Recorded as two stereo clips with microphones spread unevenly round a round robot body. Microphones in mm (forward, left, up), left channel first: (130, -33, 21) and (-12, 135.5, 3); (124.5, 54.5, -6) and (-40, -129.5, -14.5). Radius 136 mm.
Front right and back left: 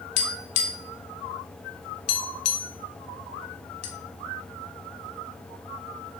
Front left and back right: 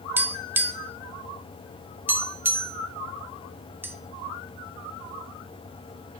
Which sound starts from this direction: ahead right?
Tapping, at 0.2 s.